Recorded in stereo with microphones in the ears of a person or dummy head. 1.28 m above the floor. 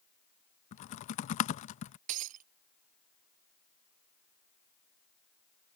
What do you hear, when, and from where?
0.7 s typing on a keyboard: 35° left (ahead or behind)
2.1 s breaking glass: 40° right (ahead or behind)